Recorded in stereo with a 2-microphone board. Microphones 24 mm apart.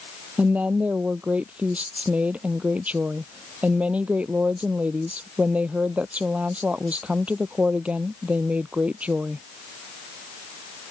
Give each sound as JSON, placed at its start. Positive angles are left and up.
{"t": 0.4, "sound": "a woman speaking", "side_deg": -60}